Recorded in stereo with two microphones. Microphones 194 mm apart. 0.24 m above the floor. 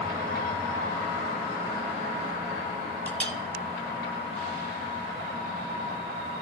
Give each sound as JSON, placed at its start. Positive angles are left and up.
{"t": 3.1, "sound": "a clink", "side_deg": 5, "distance_m": 0.8}